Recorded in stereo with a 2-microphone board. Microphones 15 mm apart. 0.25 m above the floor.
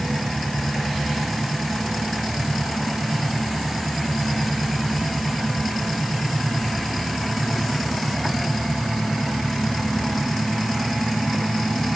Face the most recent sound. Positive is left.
No sound to turn to.